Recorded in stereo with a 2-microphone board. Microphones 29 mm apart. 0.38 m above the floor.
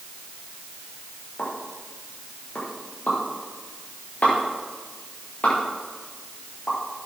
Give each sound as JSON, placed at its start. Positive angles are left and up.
{"t": 1.4, "sound": "a pop", "side_deg": 65, "distance_m": 9.0}